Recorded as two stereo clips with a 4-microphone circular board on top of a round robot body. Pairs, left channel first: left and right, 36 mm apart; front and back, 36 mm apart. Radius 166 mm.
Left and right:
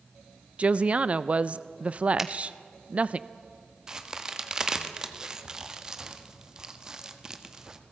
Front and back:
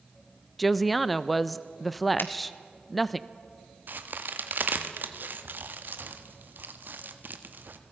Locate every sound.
0.6 s a woman speaking: 90° right, 0.7 m
2.2 s a finger snap: 10° right, 1.6 m
3.9 s a crack: 160° right, 1.4 m